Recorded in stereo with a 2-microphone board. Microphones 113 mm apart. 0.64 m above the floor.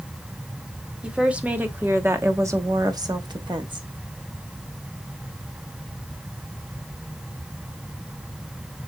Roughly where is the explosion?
No explosion in this recording.